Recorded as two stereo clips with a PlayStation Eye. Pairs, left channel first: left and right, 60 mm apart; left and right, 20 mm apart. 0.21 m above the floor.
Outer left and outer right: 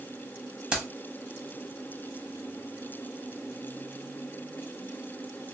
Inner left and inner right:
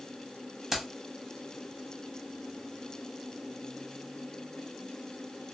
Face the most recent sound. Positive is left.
turn(degrees=-20)  # may be behind; listen again after turning